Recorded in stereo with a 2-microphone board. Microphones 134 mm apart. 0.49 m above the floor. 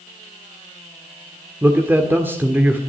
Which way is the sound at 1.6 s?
15° right (ahead or behind).